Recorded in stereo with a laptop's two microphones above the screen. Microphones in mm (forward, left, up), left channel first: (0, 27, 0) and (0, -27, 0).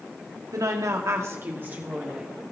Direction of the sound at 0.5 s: 80° right.